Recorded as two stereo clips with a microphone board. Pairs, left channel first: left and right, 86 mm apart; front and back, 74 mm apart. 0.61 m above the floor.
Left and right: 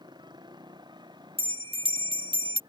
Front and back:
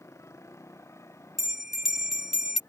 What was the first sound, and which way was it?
A motorcycle, 55° right.